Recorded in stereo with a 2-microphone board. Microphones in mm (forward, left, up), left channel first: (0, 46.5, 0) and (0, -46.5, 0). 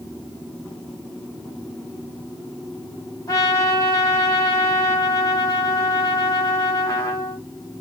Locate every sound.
3.3 s a trumpet: 45° left (ahead or behind), 1.4 m